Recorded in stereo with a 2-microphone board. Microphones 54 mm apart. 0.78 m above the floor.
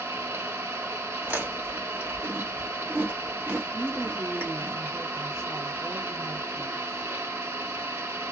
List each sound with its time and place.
0.0 s an engine running: 55° right (ahead or behind), 1.0 m
1.2 s chewing: 50° right (ahead or behind), 1.5 m
3.7 s a woman speaking: 75° right (ahead or behind), 1.9 m